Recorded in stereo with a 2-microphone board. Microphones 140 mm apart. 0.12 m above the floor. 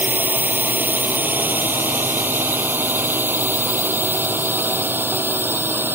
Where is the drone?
15° right (ahead or behind).